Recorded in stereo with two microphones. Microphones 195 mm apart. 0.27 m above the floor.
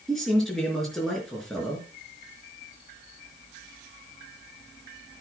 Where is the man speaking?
Centre (ahead or behind), 4.5 m.